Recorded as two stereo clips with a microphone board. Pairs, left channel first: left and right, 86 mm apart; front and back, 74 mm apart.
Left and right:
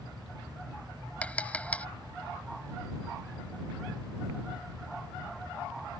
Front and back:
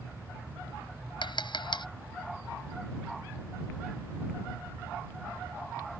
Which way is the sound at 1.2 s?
15° left.